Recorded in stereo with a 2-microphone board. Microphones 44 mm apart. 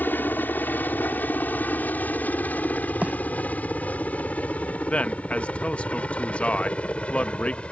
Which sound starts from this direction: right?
A bird, at 3.0 s.